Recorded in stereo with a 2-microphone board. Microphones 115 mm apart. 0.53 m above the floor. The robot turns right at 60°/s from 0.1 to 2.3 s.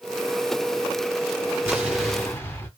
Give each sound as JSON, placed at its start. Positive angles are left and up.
{"t": 1.7, "sound": "an explosion", "azimuth_deg": -20, "distance_m": 1.7}